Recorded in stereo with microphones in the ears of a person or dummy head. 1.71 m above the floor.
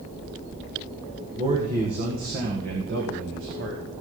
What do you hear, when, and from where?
1.4 s a man speaking: 35° right (ahead or behind), 2 m; by 3.8 s 80° right, 2.5 m